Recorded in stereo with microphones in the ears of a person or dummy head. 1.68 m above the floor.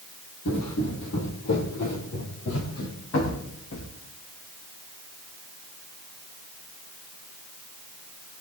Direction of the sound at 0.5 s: 65° left (ahead or behind).